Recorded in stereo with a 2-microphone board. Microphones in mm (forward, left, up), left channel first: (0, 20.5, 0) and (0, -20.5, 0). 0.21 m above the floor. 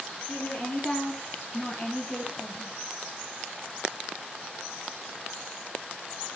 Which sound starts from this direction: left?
A woman speaking, at 0.3 s.